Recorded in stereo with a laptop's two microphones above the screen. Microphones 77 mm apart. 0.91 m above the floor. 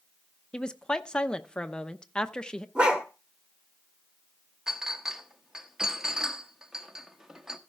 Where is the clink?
5° right (ahead or behind), 1.1 m.